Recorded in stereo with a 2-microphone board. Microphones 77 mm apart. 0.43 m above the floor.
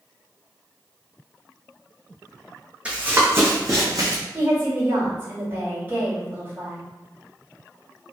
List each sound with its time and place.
2.9 s running footsteps: 15° right (ahead or behind), 1.0 m; by 4.2 s 55° right (ahead or behind), 1.3 m
4.3 s a woman speaking: 25° right (ahead or behind), 1.7 m